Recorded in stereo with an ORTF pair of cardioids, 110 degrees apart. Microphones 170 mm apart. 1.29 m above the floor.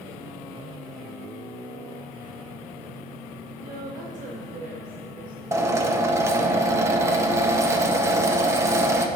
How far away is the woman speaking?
About 4 m.